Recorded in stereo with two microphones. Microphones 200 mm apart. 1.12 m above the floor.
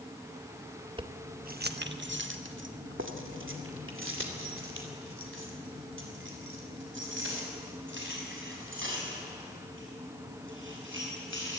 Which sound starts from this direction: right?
Keys jangling, at 1.0 s.